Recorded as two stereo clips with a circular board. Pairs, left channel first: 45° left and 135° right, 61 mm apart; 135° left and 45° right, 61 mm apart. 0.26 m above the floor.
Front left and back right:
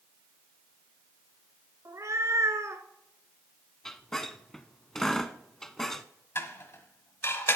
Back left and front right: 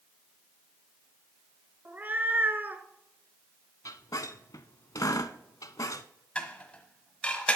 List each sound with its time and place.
1.9 s a cat meowing: 105° right, 0.9 m
3.9 s a squeak: 130° left, 0.6 m
6.3 s dishes clattering: 70° left, 1.2 m